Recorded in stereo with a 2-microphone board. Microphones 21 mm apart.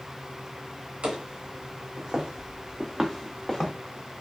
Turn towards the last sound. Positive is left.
turn(degrees=20)  # may be behind; listen again after turning